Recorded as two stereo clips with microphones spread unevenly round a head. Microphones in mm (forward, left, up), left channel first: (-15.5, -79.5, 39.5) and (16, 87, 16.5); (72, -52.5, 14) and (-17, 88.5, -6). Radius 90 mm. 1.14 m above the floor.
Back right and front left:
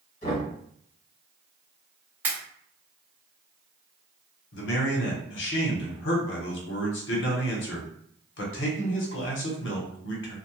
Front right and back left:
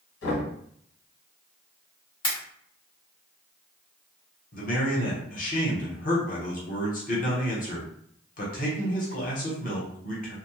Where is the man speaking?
105° right, 0.9 m.